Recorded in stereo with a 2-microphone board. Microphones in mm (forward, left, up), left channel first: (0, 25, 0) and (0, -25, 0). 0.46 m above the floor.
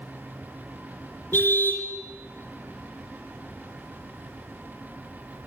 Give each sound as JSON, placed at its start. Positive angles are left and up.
{"t": 1.3, "sound": "a car horn", "side_deg": 45, "distance_m": 3.5}